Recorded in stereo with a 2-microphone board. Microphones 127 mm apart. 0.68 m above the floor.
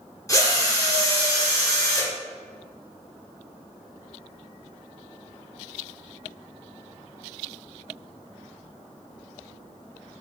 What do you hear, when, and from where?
0.3 s a drill: 25° left (ahead or behind), 1.4 m